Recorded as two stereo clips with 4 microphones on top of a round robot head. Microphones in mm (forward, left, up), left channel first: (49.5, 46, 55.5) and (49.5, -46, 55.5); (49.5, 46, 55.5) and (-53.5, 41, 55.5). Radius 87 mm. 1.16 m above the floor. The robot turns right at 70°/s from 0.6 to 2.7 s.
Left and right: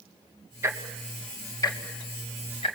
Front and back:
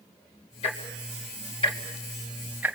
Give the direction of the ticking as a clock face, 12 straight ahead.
1 o'clock.